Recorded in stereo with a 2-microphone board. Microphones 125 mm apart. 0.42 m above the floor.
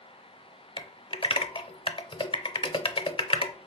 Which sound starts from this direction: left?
Typing on a keyboard, at 0.8 s.